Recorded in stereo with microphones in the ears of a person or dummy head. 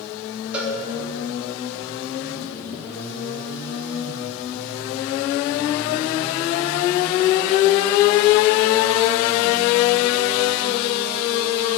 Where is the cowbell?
10° right (ahead or behind), 1.4 m.